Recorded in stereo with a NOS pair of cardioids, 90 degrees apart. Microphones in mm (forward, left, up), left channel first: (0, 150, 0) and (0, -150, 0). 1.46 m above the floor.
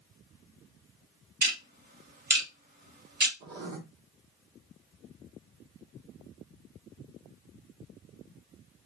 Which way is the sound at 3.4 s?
65° right.